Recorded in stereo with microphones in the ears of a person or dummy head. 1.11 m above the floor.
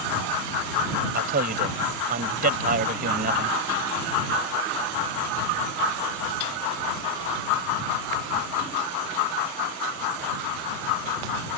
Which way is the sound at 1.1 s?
45° right (ahead or behind).